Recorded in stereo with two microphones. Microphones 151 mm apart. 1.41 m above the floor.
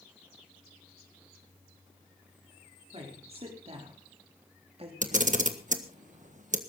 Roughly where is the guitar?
No guitar in this recording.